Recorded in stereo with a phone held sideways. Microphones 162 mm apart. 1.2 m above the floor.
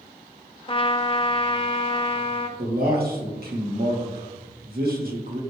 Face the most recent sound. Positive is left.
turn(degrees=-70)  # may be behind; listen again after turning